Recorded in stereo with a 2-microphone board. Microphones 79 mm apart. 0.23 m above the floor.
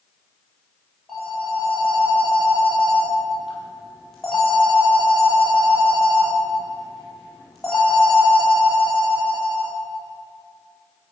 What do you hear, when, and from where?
1.1 s a phone ringing: 5° left (ahead or behind), 5 m